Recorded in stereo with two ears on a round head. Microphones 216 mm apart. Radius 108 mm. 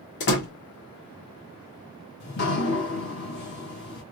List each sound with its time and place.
0.2 s a door slam: 50° left (ahead or behind), 1.7 m
2.2 s dripping: 45° left (ahead or behind), 1.7 m